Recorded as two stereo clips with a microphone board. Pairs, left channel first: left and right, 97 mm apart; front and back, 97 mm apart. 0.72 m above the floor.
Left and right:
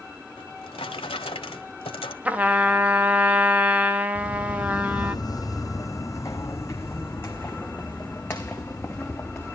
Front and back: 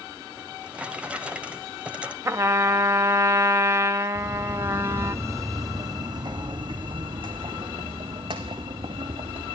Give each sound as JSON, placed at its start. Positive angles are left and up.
{"t": 0.4, "sound": "a drawer", "azimuth_deg": 105, "distance_m": 1.5}
{"t": 2.2, "sound": "a trumpet", "azimuth_deg": -150, "distance_m": 1.0}
{"t": 4.2, "sound": "footsteps", "azimuth_deg": 95, "distance_m": 1.1}